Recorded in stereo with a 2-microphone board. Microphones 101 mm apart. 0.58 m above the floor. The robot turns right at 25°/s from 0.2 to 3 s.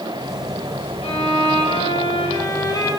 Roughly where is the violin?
Left.